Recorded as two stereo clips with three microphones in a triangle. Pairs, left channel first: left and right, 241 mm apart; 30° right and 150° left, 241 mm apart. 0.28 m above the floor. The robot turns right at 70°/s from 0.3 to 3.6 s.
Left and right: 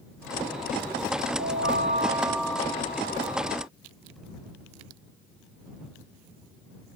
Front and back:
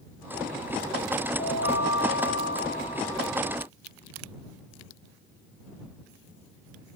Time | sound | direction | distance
1.4 | a chime | 75° right | ?